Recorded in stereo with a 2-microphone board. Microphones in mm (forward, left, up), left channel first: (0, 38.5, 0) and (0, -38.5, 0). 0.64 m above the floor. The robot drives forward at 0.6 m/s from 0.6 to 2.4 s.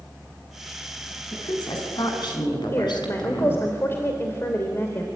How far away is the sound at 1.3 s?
About 6 m.